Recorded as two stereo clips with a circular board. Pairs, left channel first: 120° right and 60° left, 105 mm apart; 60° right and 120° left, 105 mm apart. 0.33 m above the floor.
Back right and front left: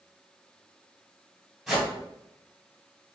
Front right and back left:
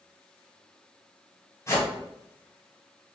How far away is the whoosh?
About 1.7 m.